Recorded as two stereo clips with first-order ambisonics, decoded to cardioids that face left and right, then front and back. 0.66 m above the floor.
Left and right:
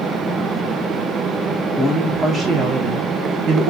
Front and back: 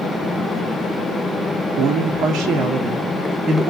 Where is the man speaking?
175° right, 1.3 m; by 3.7 s 110° right, 1.8 m.